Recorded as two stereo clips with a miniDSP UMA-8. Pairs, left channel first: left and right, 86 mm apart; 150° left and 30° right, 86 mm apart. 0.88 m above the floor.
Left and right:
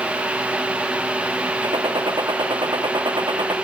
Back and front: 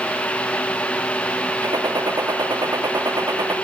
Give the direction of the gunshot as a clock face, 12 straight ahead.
2 o'clock.